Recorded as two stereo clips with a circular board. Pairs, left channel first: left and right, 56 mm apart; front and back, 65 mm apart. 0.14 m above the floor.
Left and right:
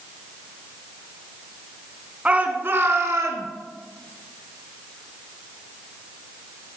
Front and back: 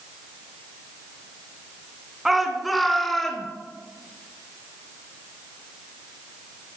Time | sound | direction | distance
2.2 | a shout | 100° right | 1.1 m